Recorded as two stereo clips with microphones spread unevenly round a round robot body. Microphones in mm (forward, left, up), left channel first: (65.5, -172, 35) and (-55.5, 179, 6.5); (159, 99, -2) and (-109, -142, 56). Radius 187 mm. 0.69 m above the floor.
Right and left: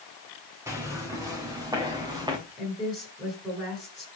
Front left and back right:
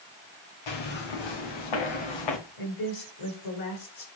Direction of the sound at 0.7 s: 25° left.